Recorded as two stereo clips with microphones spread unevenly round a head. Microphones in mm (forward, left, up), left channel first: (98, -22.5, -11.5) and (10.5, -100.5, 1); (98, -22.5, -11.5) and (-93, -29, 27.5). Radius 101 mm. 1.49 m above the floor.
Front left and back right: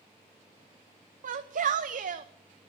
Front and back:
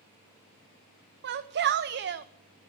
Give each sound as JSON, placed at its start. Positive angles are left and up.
{"t": 1.2, "sound": "a shout", "azimuth_deg": -145, "distance_m": 0.7}